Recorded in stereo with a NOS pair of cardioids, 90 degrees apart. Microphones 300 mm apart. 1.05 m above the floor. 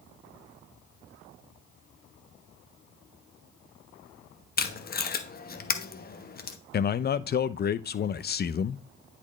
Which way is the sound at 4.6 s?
30° left.